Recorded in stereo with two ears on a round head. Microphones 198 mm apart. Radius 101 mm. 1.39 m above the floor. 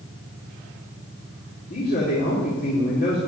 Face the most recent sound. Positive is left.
turn(degrees=40)  # may be behind; listen again after turning